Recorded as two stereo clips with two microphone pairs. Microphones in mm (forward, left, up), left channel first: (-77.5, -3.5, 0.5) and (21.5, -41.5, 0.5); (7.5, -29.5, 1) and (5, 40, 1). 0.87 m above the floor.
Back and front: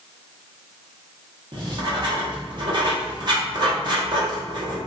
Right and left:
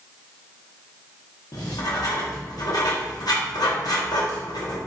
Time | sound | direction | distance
1.5 | writing | 65° right | 0.9 m